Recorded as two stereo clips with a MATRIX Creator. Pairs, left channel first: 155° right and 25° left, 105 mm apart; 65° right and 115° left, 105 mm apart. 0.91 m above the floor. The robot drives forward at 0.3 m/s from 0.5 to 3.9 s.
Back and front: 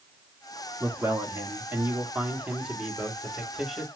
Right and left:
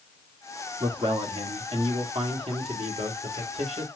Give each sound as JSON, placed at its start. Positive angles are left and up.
{"t": 0.8, "sound": "a man speaking", "azimuth_deg": 80, "distance_m": 1.6}